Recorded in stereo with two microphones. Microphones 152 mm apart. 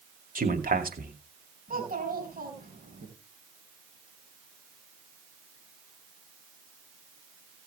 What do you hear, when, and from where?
0.3 s a man speaking: 70° right (ahead or behind), 2.5 m
1.7 s a child speaking: 70° right (ahead or behind), 4 m